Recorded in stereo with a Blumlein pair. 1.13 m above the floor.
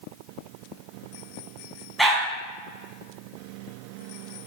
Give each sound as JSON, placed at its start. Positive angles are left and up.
{"t": 2.0, "sound": "a dog barking", "azimuth_deg": 0, "distance_m": 3.5}